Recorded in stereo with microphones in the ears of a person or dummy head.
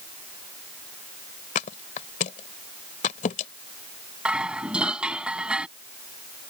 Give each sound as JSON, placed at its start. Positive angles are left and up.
{"t": 1.6, "sound": "a thud", "side_deg": 40}
{"t": 4.2, "sound": "dishes clattering", "side_deg": -5}